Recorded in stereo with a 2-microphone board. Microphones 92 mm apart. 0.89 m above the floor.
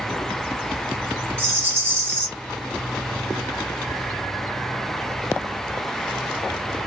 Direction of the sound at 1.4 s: 30° right (ahead or behind).